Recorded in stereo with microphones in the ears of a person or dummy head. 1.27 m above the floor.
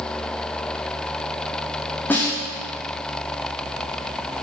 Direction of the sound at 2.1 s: 15° left (ahead or behind).